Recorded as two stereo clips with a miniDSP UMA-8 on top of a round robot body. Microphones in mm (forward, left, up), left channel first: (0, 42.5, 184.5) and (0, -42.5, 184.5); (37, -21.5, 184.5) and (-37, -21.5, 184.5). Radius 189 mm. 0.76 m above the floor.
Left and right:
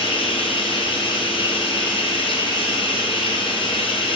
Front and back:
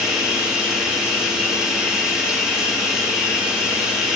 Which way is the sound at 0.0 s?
100° left.